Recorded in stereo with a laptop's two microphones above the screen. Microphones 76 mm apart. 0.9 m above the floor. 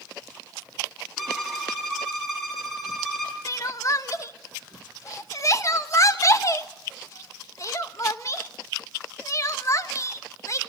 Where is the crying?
40° left (ahead or behind), 1.2 m.